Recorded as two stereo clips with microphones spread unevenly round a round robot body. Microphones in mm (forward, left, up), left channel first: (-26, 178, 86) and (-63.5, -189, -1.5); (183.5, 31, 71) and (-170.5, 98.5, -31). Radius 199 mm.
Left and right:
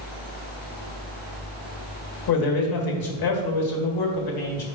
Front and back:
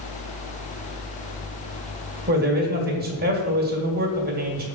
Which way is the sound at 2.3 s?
115° left.